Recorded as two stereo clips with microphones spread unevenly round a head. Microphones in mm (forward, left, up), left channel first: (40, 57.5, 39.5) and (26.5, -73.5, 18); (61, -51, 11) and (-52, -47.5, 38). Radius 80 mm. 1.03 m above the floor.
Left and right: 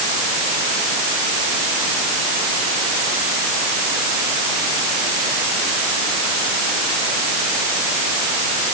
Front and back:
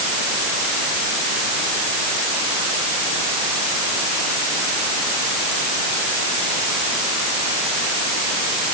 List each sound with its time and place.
Only background noise.